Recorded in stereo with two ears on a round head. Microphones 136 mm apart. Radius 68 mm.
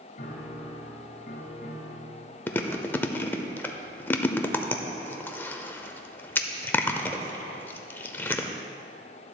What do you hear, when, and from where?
0.2 s a piano: 55° left (ahead or behind), 1.4 m
2.5 s chewing: 15° left (ahead or behind), 0.6 m